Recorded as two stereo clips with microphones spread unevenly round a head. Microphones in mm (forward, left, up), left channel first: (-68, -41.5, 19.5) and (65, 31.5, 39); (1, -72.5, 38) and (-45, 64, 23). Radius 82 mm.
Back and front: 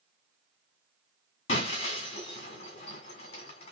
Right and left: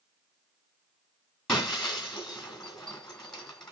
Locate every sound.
1.5 s breaking glass: 135° right, 1.8 m